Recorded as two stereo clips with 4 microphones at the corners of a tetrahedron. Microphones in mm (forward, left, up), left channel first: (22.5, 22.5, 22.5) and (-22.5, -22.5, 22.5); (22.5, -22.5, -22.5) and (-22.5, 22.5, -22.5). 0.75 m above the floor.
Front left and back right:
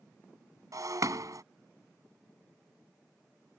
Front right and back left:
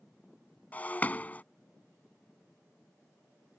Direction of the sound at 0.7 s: 110° right.